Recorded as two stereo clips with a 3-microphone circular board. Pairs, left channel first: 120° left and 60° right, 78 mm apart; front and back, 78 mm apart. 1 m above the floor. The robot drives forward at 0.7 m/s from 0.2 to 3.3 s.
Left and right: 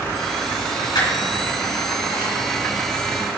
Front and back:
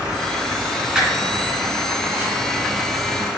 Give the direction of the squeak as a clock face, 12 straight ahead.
9 o'clock.